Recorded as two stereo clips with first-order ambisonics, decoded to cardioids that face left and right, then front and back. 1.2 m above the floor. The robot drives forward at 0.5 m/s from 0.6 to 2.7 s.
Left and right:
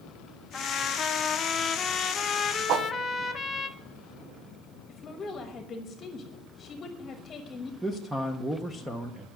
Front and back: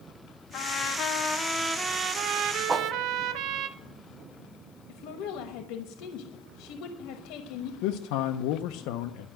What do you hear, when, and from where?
0.5 s a trumpet: 20° left, 0.7 m; by 3.7 s 160° left, 0.7 m
2.7 s a whoosh: 110° right, 0.6 m
4.9 s a woman speaking: 20° left, 1.1 m
7.8 s a man speaking: 5° right, 0.6 m